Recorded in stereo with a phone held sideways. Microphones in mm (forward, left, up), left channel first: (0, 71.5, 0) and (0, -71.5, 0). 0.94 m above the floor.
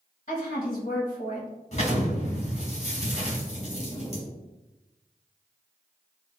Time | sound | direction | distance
0.3 | a woman speaking | 50° left (ahead or behind) | 0.9 m
1.7 | an explosion | 45° left (ahead or behind) | 1.3 m